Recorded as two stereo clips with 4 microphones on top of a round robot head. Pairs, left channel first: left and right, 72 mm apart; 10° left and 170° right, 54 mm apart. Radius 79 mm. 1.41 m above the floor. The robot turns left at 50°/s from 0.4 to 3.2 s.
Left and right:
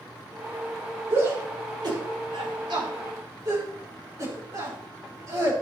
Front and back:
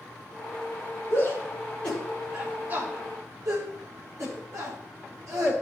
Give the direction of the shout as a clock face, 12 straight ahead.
1 o'clock.